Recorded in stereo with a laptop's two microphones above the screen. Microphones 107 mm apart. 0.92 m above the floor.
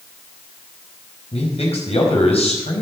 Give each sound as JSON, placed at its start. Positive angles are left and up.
{"t": 1.3, "sound": "a man speaking", "side_deg": 80, "distance_m": 5.0}